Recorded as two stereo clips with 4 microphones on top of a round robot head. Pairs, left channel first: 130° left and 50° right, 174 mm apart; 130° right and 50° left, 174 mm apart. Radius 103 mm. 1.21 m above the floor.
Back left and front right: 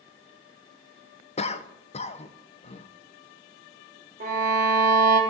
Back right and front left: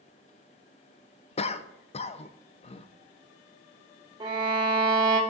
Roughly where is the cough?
Behind.